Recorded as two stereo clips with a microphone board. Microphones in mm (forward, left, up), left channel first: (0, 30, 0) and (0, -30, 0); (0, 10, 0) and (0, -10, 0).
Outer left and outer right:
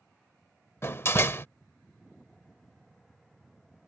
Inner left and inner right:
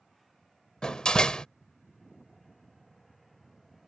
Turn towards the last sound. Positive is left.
turn(degrees=40)  # may be behind; listen again after turning